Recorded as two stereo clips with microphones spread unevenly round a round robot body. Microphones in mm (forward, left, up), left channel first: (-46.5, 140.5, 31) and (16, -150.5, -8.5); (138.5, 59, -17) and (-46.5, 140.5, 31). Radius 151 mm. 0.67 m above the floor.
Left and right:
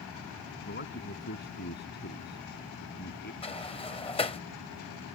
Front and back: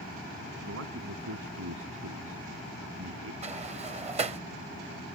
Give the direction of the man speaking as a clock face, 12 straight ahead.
7 o'clock.